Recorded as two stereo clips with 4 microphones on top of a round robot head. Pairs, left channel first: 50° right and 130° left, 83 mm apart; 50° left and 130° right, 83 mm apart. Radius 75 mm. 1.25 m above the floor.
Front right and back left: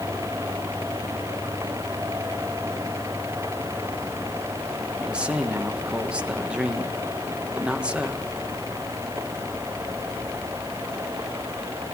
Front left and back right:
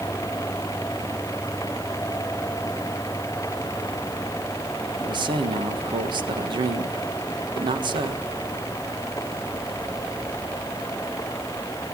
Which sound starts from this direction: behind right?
A man speaking, at 5.0 s.